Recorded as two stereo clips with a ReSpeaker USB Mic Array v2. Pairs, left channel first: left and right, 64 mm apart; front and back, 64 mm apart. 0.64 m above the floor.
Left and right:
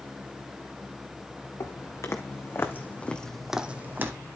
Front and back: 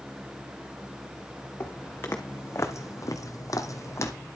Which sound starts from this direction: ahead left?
Footsteps, at 1.6 s.